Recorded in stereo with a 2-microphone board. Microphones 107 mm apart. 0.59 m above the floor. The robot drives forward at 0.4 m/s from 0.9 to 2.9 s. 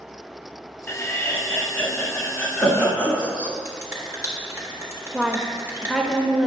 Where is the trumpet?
No trumpet in this recording.